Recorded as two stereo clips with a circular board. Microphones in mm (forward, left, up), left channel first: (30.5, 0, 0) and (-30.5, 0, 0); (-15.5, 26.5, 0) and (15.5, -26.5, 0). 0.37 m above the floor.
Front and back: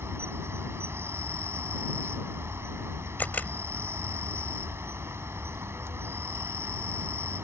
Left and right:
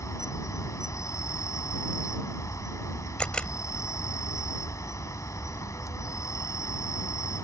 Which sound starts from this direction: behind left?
An insect, at 0.0 s.